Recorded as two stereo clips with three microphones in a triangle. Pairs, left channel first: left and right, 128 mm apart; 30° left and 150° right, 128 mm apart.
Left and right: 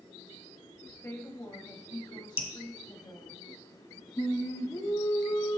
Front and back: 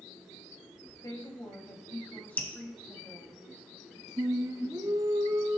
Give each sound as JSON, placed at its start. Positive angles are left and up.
{"t": 1.0, "sound": "a woman speaking", "azimuth_deg": 45, "distance_m": 1.5}
{"t": 2.4, "sound": "dripping", "azimuth_deg": 105, "distance_m": 1.1}
{"t": 4.2, "sound": "singing", "azimuth_deg": 150, "distance_m": 0.9}